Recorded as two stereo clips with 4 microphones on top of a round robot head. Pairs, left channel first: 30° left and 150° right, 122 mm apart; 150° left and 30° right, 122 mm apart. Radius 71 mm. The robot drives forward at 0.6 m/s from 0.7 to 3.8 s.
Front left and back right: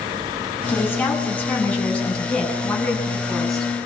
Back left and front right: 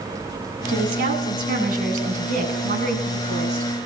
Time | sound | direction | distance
0.7 | a woman speaking | 45° right | 8.5 m